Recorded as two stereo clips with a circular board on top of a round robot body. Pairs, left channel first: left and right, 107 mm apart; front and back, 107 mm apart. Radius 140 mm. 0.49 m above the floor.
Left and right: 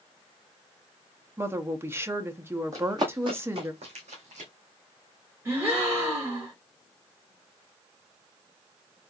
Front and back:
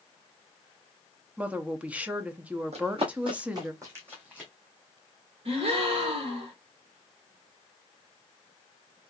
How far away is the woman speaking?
About 0.8 m.